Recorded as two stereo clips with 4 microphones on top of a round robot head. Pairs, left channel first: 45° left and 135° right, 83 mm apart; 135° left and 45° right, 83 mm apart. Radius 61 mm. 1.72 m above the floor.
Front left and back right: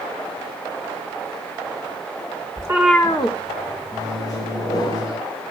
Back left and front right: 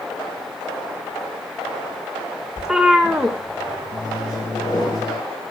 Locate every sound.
2.6 s a cat meowing: 125° right, 1.0 m; by 4.9 s 40° left, 3 m
3.9 s a microwave: 90° left, 5.5 m